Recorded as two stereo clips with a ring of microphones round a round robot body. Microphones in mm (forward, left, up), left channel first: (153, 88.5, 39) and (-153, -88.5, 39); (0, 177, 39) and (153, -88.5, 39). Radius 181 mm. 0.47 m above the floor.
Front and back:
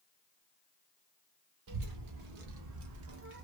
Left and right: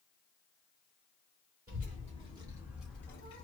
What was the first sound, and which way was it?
A child speaking, 125° right.